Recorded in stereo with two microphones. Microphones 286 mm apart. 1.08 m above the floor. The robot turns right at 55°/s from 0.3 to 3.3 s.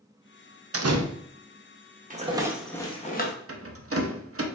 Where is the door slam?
50° right (ahead or behind), 0.5 m; by 1.0 s 65° right (ahead or behind), 0.5 m.